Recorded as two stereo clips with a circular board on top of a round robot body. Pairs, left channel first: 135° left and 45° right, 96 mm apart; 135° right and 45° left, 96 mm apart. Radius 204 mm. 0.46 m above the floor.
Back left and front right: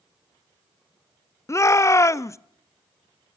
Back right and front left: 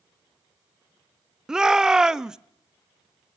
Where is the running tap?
I don't hear a running tap.